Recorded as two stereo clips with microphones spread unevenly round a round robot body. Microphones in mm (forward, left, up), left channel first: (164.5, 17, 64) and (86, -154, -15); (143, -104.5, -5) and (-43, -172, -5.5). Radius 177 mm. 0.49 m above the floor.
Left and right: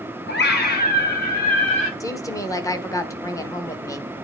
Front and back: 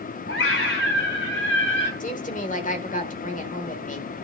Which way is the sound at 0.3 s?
30° left.